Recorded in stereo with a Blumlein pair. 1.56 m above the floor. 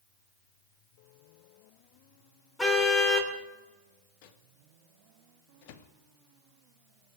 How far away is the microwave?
About 1.2 m.